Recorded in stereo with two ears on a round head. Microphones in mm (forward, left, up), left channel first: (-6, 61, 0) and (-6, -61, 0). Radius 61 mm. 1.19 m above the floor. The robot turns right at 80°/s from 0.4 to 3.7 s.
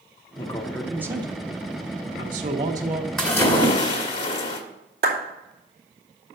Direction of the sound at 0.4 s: 145° left.